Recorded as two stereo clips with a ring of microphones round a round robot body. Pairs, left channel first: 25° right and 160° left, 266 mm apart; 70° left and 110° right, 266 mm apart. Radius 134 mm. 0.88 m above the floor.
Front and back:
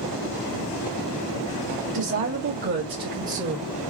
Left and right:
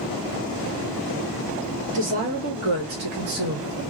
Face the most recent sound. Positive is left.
turn(degrees=-140)